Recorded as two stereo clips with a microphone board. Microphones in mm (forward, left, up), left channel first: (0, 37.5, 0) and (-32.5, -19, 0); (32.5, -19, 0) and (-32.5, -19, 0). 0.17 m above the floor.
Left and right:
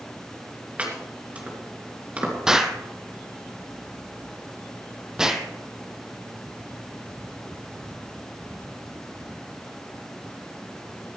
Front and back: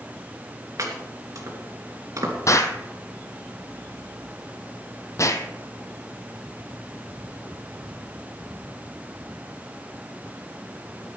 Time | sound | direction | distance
0.8 | chopping | 175° left | 3 m
2.5 | an explosion | 40° right | 1.2 m